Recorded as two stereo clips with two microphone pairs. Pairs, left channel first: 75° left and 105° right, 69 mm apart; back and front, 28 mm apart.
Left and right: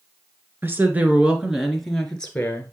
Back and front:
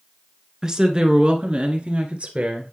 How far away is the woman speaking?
About 1.5 m.